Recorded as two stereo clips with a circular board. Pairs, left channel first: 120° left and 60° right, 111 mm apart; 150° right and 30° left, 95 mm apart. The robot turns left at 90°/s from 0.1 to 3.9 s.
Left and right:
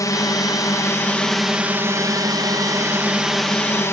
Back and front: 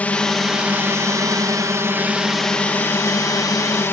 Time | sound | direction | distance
0.0 | a drone | 145° left | ?